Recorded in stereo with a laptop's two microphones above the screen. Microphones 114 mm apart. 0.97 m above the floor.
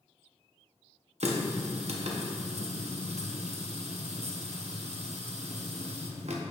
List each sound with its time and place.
1.2 s a running tap: 70° right (ahead or behind), 0.8 m